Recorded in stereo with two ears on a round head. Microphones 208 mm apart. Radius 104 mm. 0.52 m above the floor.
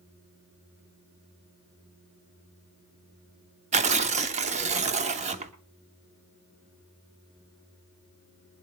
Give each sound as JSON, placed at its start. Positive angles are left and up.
{"t": 3.7, "sound": "tearing paper", "side_deg": -30, "distance_m": 1.1}